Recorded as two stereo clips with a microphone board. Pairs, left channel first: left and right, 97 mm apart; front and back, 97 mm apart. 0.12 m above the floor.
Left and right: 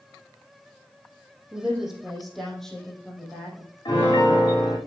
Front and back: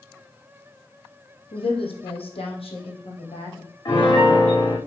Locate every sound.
1.5 s a woman speaking: 10° right, 3.5 m; by 3.8 s 10° left, 5 m
3.9 s a piano: 45° left, 5.5 m